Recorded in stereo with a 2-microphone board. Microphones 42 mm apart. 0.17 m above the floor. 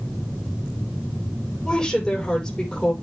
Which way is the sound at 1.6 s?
15° left (ahead or behind).